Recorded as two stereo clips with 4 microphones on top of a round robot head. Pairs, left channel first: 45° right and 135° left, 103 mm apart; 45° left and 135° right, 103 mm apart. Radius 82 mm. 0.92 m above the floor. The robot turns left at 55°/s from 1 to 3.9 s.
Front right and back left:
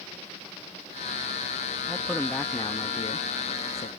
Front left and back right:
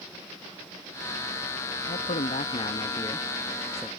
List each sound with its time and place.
1.9 s a man speaking: 55° left; by 3.9 s 55° right